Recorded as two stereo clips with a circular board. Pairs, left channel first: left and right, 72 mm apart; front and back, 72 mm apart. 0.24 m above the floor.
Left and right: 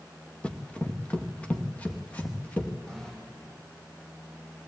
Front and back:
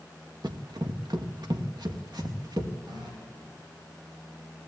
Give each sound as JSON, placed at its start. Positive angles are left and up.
{"t": 0.4, "sound": "running footsteps", "azimuth_deg": 165, "distance_m": 1.6}
{"t": 2.9, "sound": "a running tap", "azimuth_deg": 175, "distance_m": 6.0}